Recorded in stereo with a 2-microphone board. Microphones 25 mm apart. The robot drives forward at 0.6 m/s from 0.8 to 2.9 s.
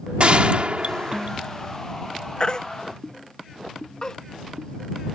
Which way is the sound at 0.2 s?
55° right (ahead or behind).